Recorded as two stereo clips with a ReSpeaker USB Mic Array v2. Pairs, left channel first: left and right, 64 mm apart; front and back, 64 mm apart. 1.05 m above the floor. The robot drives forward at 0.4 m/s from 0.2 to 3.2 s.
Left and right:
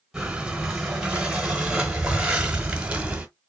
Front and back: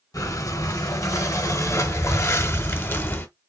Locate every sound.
0.1 s breathing: 10° right, 1.8 m; by 3.3 s 35° right, 0.9 m